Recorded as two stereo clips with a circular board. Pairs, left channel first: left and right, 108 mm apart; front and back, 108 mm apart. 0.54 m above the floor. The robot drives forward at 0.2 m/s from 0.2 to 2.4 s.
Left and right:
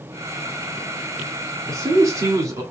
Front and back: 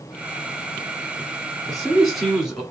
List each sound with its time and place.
1.7 s a man speaking: 80° right, 1.3 m; by 2.6 s 90° right, 1.3 m